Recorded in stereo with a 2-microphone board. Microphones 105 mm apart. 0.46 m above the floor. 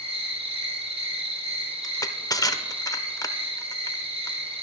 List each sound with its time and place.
0.0 s an insect: 70° right (ahead or behind), 4.5 m
1.8 s crushing: 35° left (ahead or behind), 0.6 m